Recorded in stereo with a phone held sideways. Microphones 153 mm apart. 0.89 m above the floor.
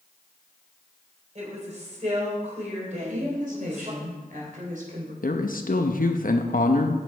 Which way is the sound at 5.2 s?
65° left (ahead or behind).